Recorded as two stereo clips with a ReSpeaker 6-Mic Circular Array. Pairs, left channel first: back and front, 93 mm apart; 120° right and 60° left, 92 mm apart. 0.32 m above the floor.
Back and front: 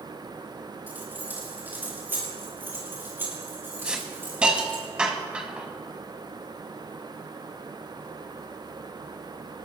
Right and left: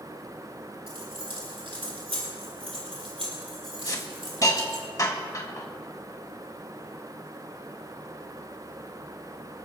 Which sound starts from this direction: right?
A hiss, at 3.9 s.